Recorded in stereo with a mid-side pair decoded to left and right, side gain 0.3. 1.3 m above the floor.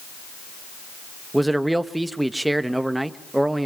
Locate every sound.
1.3 s a man speaking: 15° right, 1.4 m